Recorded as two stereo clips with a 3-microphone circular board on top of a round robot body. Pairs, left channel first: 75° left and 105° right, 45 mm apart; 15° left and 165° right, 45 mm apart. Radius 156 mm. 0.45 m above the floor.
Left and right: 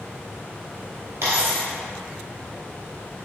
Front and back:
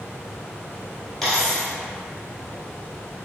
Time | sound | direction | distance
1.2 | a dropped coin | 70° right | 1.1 m